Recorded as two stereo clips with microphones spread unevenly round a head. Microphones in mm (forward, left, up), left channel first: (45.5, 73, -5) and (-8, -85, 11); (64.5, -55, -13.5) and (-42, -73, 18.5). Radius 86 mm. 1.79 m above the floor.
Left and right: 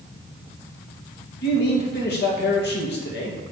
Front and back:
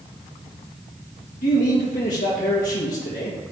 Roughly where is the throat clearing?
I don't hear throat clearing.